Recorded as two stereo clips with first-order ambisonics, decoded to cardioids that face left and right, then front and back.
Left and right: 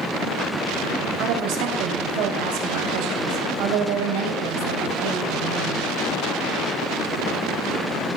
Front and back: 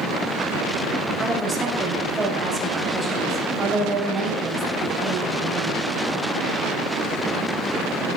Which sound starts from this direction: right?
A woman speaking, at 1.2 s.